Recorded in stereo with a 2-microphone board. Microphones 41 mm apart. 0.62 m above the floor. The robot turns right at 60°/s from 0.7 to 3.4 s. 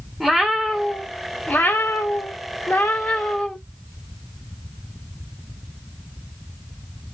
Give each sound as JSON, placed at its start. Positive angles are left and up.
{"t": 0.2, "sound": "a cat meowing", "azimuth_deg": -5, "distance_m": 0.7}